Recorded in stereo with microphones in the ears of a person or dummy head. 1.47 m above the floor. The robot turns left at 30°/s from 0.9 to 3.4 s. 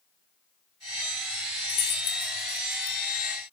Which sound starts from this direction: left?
Keys jangling, at 1.7 s.